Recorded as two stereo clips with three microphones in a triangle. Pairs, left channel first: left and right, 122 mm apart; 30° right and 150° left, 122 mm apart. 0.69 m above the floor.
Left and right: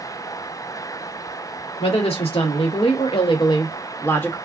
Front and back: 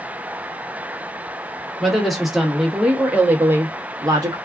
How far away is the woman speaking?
About 1.4 m.